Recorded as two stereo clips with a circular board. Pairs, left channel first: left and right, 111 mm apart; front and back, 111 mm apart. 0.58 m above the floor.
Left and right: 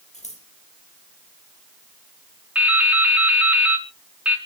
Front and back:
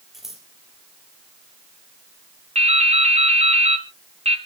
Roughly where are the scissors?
Left.